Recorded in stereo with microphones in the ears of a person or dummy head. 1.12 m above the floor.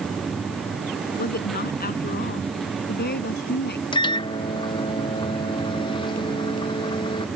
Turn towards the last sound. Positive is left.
turn(degrees=20)  # may be behind; listen again after turning